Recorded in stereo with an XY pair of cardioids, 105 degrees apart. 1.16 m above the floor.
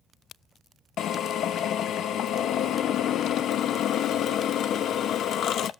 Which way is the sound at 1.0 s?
65° left.